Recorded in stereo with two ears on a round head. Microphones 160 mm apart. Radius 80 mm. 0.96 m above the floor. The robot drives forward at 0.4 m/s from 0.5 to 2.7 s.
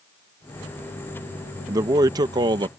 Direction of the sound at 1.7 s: 20° right (ahead or behind).